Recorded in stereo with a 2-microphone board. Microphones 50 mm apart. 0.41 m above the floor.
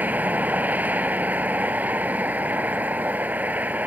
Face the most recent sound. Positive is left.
turn(degrees=-35)  # may be behind; listen again after turning